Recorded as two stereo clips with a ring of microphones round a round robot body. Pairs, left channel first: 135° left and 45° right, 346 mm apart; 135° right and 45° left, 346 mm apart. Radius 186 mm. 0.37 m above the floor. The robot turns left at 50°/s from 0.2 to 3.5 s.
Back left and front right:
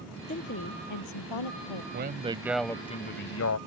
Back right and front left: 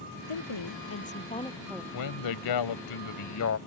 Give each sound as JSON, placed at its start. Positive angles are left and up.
{"t": 0.3, "sound": "a woman speaking", "azimuth_deg": -155}
{"t": 1.9, "sound": "a man speaking", "azimuth_deg": -105}